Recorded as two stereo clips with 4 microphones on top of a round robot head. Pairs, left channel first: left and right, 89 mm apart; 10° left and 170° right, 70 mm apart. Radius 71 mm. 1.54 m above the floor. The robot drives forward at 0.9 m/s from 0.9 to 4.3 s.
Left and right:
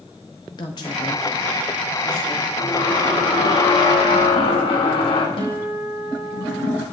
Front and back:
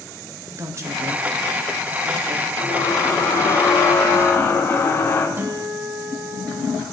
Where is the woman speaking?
145° left, 1.7 m; by 2.5 s 160° left, 3 m.